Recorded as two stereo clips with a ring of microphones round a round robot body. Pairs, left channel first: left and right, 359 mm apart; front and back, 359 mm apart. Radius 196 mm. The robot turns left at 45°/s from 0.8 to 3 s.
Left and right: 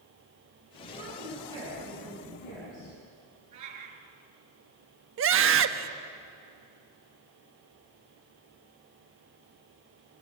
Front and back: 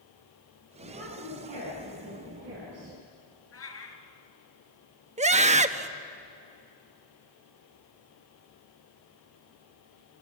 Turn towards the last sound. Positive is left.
turn(degrees=-120)